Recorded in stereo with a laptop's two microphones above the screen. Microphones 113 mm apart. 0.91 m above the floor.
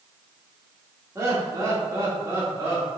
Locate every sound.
1.1 s laughter: 30° right (ahead or behind), 1.9 m